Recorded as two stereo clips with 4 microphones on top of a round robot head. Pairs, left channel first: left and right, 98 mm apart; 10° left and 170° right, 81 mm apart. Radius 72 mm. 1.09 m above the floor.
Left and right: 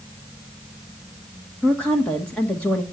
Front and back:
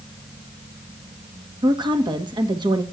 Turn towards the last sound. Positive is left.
turn(degrees=170)